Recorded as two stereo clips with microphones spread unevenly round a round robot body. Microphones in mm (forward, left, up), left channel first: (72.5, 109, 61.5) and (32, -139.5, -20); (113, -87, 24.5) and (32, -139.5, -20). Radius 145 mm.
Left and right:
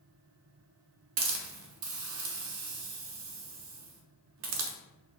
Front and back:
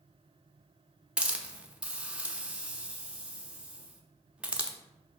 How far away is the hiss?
About 0.6 m.